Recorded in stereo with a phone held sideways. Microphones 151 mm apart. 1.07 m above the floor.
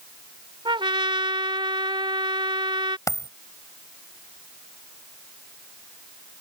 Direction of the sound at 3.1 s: 20° left (ahead or behind).